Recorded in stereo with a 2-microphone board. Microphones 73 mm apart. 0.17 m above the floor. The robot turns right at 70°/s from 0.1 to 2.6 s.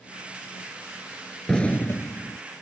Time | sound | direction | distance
1.5 | an explosion | 10° left | ?